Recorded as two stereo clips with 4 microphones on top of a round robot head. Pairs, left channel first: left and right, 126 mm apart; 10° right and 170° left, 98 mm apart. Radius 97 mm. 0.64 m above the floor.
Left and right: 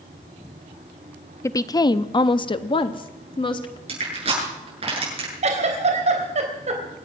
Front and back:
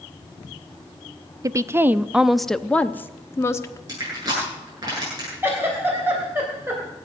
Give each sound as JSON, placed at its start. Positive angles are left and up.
{"t": 1.4, "sound": "a woman speaking", "azimuth_deg": 140, "distance_m": 0.7}
{"t": 3.9, "sound": "crushing", "azimuth_deg": -130, "distance_m": 8.5}
{"t": 5.4, "sound": "a giggle", "azimuth_deg": -120, "distance_m": 3.5}